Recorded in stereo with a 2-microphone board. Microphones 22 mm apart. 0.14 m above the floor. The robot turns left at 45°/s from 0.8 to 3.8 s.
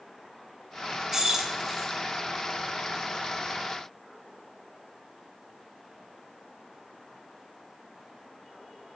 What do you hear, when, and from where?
1.1 s keys jangling: 25° right (ahead or behind), 0.9 m; by 1.9 s 20° right (ahead or behind), 0.9 m